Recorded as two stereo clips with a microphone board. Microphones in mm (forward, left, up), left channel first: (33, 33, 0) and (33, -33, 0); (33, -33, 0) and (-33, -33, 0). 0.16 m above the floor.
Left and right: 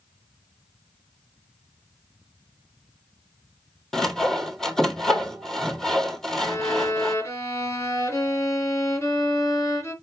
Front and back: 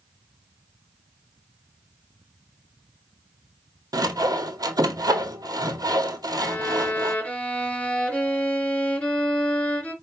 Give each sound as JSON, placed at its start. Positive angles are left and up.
{"t": 3.9, "sound": "sawing", "azimuth_deg": 170, "distance_m": 0.8}
{"t": 6.4, "sound": "a violin", "azimuth_deg": 65, "distance_m": 2.5}